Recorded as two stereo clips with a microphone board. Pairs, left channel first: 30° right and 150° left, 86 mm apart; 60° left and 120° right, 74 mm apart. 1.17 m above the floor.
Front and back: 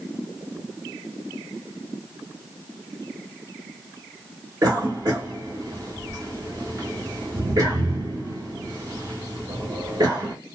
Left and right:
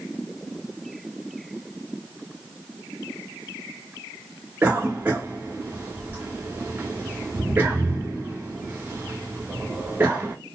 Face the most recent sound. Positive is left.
turn(degrees=180)